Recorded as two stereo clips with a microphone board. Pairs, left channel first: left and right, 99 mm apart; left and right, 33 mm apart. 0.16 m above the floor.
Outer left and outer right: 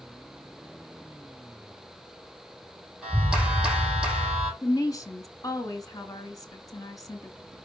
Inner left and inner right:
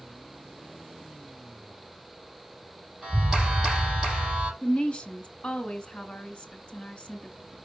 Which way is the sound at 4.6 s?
40° left (ahead or behind).